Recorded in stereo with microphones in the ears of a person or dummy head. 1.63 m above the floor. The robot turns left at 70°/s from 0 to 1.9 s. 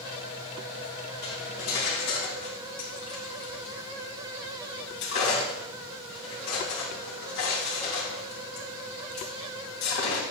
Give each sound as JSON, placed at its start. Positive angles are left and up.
{"t": 1.2, "sound": "cutlery clinking", "side_deg": 45, "distance_m": 2.0}